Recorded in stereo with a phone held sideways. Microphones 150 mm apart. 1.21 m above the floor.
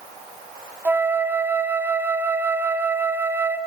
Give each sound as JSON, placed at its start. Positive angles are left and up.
{"t": 0.8, "sound": "a flute", "side_deg": -15, "distance_m": 1.7}